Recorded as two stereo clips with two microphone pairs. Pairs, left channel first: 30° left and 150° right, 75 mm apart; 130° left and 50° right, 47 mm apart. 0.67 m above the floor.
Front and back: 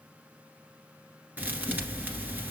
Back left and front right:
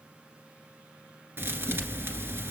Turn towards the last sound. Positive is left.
turn(degrees=-85)